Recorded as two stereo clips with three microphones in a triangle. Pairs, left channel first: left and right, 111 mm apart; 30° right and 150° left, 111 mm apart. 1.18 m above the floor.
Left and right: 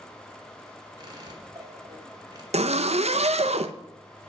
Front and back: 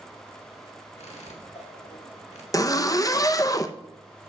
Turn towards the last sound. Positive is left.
turn(degrees=-90)